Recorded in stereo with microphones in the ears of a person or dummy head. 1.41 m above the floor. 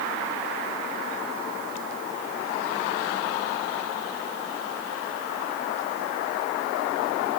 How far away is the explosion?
No explosion in this recording.